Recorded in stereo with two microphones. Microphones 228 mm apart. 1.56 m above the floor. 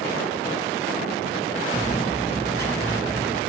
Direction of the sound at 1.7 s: 10° left (ahead or behind).